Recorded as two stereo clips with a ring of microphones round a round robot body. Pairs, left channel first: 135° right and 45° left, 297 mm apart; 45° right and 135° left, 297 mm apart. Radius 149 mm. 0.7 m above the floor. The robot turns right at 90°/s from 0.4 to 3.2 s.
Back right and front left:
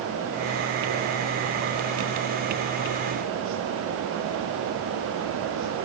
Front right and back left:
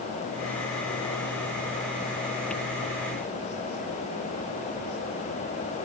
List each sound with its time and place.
Only background noise.